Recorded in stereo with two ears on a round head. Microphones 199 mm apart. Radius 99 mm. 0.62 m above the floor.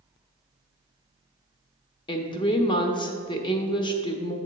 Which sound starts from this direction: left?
A woman speaking, at 2.1 s.